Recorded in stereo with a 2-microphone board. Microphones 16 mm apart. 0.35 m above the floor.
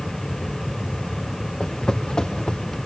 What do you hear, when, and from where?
1.6 s footsteps: 60° left (ahead or behind), 4.5 m